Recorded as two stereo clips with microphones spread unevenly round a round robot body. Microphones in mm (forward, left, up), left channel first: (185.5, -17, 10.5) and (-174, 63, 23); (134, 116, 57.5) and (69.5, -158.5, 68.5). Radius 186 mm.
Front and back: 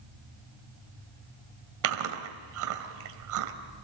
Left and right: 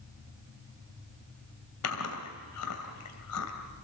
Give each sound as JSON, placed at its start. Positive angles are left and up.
{"t": 1.8, "sound": "chewing", "azimuth_deg": 125, "distance_m": 2.5}